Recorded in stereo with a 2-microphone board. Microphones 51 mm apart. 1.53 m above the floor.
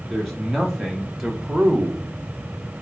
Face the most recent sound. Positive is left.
turn(degrees=-30)  # may be behind; listen again after turning